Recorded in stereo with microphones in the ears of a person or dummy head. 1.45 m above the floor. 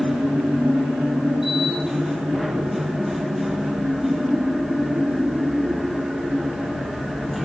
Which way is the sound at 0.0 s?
Centre (ahead or behind).